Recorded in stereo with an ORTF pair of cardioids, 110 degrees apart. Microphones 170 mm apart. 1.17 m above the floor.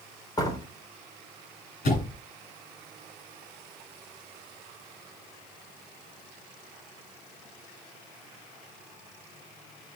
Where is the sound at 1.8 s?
65° left, 8.5 m.